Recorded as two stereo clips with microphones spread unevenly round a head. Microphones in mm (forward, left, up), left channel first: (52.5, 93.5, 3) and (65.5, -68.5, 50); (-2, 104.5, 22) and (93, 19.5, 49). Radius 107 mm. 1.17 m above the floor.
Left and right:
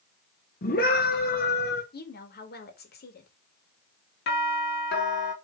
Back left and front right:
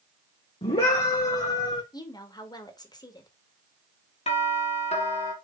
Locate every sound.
0.6 s a scream: 100° left, 1.4 m
1.9 s a woman speaking: 80° left, 2.0 m
4.3 s a doorbell: 110° left, 2.5 m